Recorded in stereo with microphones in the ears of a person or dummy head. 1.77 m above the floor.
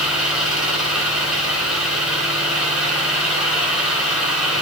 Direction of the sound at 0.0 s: 5° right (ahead or behind).